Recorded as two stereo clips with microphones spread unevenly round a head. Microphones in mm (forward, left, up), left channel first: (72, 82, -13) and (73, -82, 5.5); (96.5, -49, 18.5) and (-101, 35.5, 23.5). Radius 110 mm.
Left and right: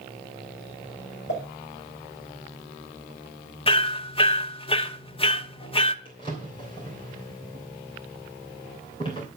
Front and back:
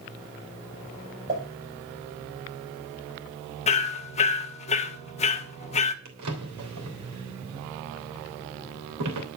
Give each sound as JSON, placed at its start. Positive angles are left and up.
{"t": 1.3, "sound": "a pop", "azimuth_deg": 100, "distance_m": 5.5}
{"t": 3.7, "sound": "hammering", "azimuth_deg": 35, "distance_m": 1.0}
{"t": 6.0, "sound": "a drawer", "azimuth_deg": 160, "distance_m": 3.0}